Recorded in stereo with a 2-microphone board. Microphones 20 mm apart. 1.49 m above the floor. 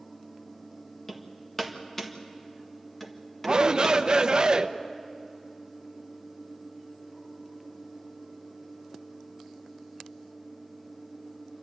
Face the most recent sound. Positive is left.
turn(degrees=-50)  # may be behind; listen again after turning